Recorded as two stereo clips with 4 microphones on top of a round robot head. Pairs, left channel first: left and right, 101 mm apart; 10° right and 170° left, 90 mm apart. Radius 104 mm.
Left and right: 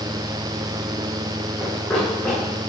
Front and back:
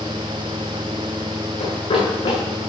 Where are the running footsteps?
10° left, 6.5 m.